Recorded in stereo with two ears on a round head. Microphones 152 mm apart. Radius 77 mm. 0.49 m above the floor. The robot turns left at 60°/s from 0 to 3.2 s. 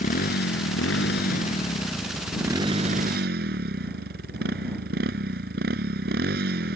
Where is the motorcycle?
130° left; by 6.8 s 60° right.